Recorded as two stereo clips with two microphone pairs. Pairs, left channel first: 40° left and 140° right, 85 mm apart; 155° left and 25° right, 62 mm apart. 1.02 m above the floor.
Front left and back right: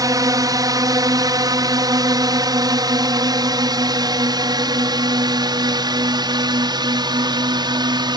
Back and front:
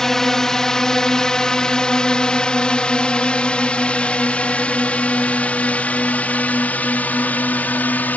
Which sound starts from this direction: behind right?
A drone, at 0.0 s.